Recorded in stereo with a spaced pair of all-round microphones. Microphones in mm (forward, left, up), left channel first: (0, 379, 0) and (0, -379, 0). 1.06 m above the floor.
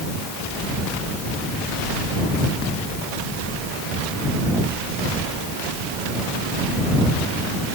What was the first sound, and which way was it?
Only background noise.